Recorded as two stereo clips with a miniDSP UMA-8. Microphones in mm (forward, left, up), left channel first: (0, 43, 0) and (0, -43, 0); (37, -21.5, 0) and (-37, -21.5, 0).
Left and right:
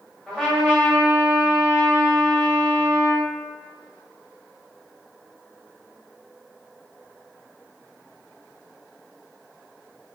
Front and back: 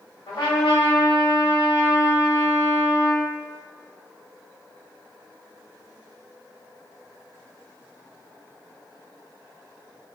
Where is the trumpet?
5° left, 1.1 m.